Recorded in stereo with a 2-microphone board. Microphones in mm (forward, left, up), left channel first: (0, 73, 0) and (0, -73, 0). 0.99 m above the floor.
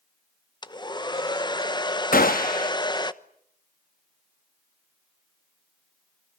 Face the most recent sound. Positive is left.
turn(degrees=80)